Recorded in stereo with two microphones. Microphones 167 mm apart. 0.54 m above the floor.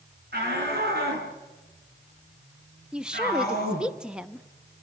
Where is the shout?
75° right (ahead or behind), 5.5 m; by 3.9 s 60° right (ahead or behind), 6.5 m.